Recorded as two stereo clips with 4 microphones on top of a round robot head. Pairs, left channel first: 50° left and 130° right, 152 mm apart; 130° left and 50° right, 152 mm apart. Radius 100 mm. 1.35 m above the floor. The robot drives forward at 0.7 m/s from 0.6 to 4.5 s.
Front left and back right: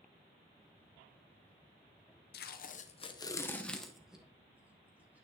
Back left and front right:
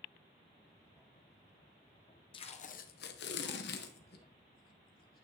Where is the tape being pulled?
70° left, 0.7 m; by 5.2 s 150° left, 1.4 m.